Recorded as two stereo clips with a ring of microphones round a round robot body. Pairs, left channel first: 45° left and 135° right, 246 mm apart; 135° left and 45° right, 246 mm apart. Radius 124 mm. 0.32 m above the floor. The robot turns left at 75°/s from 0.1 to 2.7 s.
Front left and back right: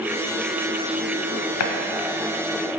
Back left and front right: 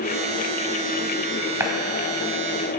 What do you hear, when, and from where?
1.6 s a running tap: 35° left, 1.1 m; by 1.7 s 25° left, 1.1 m